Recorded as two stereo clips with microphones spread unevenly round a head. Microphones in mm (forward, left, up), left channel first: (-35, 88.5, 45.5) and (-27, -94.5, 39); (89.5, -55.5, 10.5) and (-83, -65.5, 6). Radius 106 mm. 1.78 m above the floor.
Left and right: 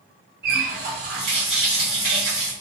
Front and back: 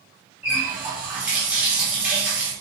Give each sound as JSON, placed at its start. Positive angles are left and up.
{"t": 0.4, "sound": "a running tap", "azimuth_deg": -95, "distance_m": 1.3}